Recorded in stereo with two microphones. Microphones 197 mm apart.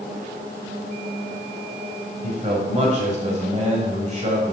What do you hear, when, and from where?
2.2 s a man speaking: 35° right (ahead or behind), 1.6 m